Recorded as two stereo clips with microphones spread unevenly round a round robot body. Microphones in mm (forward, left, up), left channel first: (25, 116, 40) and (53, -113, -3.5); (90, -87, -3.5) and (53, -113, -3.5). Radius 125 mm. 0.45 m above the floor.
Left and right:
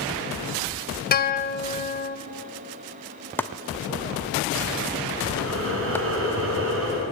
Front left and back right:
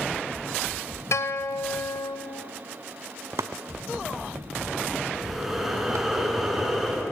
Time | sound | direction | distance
1.1 | a guitar | 45° left | 1.7 m
3.4 | chopping | 175° left | 0.5 m
5.1 | breathing | 60° right | 7 m